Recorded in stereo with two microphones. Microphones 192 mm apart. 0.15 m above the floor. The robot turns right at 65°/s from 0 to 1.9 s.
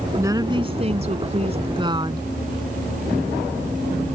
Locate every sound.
0.2 s a woman speaking: 155° right; by 2.3 s 45° right